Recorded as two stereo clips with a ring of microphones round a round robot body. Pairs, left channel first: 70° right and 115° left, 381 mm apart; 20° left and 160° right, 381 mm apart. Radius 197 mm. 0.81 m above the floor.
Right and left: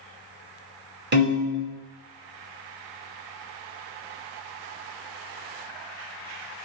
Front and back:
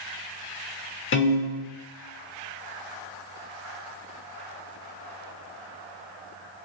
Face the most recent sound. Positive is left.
turn(degrees=65)